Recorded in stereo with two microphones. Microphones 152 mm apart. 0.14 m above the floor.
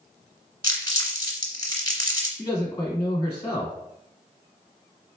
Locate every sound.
0.6 s crumpling: 30° left (ahead or behind), 1.6 m
2.4 s a man speaking: 20° left (ahead or behind), 1.6 m